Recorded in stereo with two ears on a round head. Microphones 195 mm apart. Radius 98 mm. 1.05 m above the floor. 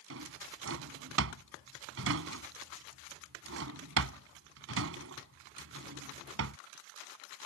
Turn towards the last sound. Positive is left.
turn(degrees=-70)  # may be behind; listen again after turning